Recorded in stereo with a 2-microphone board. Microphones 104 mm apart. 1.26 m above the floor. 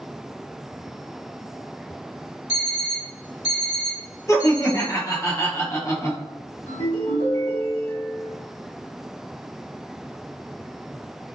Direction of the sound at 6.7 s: 65° left (ahead or behind).